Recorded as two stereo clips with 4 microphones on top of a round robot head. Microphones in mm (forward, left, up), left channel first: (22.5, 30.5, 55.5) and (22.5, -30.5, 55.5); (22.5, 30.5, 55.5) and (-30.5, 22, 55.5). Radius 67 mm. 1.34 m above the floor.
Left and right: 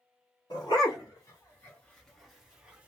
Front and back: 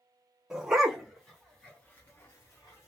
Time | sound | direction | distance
0.5 | a dog barking | 110° left | 1.0 m